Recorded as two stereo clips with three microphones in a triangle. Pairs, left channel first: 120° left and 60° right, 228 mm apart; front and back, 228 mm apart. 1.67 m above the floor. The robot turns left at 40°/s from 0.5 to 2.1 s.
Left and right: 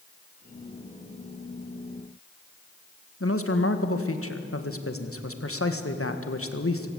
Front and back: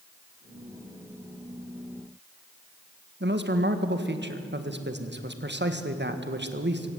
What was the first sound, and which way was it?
A man speaking, 140° left.